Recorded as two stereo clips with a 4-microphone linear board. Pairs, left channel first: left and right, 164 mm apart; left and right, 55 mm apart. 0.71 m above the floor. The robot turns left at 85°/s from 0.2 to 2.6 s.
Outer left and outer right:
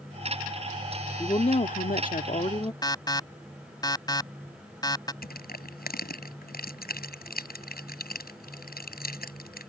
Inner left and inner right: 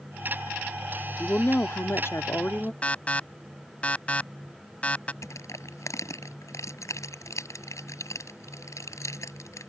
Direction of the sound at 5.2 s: 80° left.